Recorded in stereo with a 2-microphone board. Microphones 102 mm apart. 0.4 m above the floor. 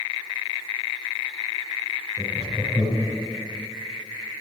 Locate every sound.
2.2 s laughter: 25° right (ahead or behind), 5.5 m